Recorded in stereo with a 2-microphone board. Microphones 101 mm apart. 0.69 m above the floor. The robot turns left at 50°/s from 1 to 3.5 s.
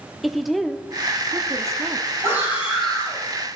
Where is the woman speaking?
Straight ahead, 1.0 m; by 2.1 s 55° right, 1.0 m.